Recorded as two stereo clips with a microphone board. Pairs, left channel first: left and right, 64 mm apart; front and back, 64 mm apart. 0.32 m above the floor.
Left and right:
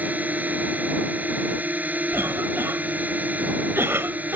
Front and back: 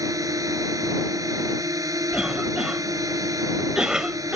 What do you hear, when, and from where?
0.0 s a drone: 155° right
2.1 s a cough: 110° right